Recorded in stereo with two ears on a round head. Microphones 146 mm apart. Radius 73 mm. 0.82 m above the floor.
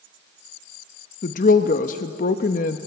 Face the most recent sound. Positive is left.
turn(degrees=50)  # may be behind; listen again after turning